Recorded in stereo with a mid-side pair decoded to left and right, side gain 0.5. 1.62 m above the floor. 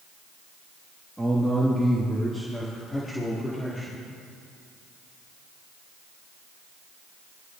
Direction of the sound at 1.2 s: 5° right.